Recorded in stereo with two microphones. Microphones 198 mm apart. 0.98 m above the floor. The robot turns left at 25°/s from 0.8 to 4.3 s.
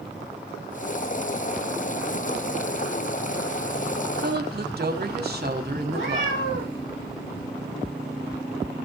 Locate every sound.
4.2 s a woman speaking: 55° right (ahead or behind), 2.0 m
5.9 s a cat meowing: 80° left, 8.5 m